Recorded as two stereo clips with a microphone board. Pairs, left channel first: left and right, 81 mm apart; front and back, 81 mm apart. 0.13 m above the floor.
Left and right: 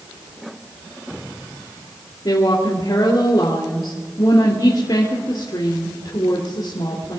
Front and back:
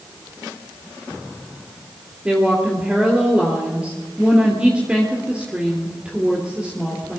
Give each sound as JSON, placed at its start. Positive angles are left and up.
{"t": 2.2, "sound": "a woman speaking", "azimuth_deg": 105, "distance_m": 3.0}